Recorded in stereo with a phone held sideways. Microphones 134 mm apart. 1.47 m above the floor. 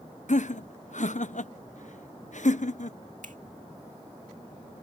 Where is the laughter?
65° left (ahead or behind).